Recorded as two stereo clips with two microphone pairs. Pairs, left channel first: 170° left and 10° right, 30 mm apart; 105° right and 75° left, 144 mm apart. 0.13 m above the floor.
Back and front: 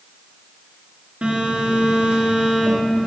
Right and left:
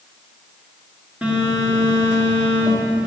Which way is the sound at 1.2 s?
10° right.